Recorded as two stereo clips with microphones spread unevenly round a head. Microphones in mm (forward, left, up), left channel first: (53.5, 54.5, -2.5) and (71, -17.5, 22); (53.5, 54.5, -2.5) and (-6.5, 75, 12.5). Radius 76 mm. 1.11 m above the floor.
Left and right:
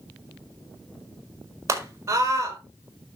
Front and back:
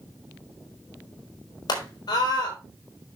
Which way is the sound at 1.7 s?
30° right.